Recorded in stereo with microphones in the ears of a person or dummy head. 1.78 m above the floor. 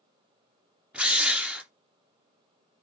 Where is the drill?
Centre (ahead or behind), 1.0 m.